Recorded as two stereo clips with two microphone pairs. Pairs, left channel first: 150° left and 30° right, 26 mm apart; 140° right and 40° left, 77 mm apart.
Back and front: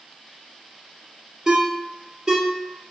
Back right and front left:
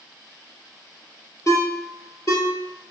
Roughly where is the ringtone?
Right.